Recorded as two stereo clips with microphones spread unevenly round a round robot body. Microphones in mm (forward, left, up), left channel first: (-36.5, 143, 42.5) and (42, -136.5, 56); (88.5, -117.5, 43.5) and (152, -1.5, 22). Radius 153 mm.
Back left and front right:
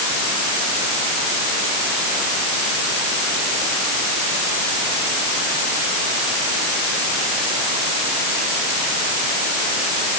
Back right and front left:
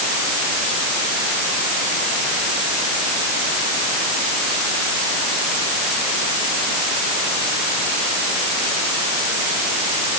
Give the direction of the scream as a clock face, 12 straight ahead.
I don't hear a scream.